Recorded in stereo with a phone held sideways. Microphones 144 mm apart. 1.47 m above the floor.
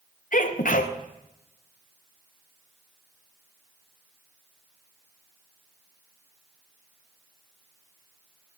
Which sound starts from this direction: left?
A sneeze, at 0.3 s.